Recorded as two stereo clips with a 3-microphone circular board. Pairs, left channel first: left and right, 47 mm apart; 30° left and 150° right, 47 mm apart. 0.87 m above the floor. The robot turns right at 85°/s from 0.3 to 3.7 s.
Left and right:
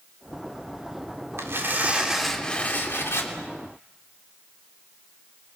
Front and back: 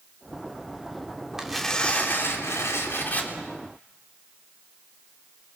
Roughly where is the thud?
No thud in this recording.